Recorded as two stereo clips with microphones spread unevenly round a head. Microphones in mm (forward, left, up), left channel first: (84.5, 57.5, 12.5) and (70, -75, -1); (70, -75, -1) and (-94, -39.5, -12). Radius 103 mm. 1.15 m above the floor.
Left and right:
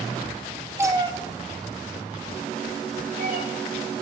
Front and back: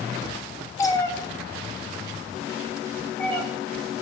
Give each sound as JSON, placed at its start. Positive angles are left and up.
{"t": 0.8, "sound": "a cat meowing", "azimuth_deg": -40, "distance_m": 0.8}